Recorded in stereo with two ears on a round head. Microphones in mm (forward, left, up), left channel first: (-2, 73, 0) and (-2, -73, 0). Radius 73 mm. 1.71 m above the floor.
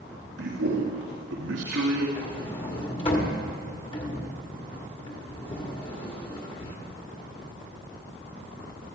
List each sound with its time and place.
0.4 s a man speaking: 85° right, 1.4 m
2.2 s a sliding door: 30° left (ahead or behind), 1.6 m